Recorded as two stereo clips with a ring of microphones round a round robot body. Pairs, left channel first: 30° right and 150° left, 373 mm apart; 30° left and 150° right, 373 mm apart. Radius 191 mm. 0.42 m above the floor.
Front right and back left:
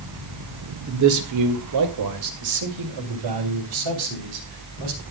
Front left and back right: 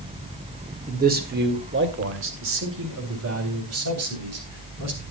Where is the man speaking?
150° left, 1.8 m; by 5.0 s 165° left, 4 m.